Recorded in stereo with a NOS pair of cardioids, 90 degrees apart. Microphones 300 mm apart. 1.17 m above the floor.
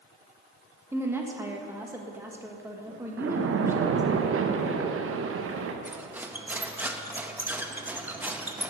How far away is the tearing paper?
No tearing paper in this recording.